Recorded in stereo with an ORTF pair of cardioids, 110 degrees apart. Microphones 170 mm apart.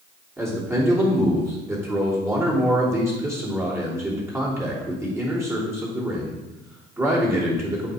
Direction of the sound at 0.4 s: 15° right.